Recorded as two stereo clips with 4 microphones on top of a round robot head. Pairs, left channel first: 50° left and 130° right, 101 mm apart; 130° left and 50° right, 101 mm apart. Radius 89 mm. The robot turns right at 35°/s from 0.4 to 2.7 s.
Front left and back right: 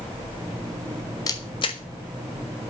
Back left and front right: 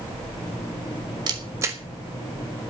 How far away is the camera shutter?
About 0.8 m.